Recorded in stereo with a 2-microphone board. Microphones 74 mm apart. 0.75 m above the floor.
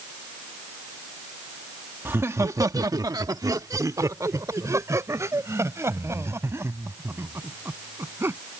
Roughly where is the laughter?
Right.